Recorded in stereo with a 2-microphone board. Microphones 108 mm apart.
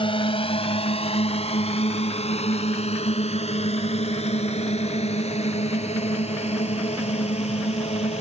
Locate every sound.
0.0 s a drone: 55° left (ahead or behind); by 8.2 s 80° left